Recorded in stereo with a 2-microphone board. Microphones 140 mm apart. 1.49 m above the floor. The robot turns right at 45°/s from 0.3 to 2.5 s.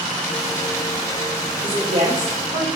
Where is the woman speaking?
145° right, 1.2 m; by 2.7 s 105° right, 1.2 m.